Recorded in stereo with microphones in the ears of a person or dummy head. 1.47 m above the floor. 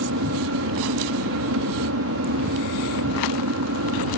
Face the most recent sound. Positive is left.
turn(degrees=-60)  # may be behind; listen again after turning